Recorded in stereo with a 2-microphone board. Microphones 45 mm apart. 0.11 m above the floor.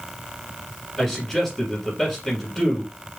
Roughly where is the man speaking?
Centre.